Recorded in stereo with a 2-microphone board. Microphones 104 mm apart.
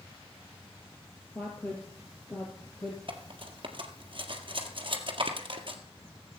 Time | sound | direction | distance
1.4 | a woman speaking | 15° left (ahead or behind) | 2.5 m
3.1 | cutlery clinking | 55° right (ahead or behind) | 1.8 m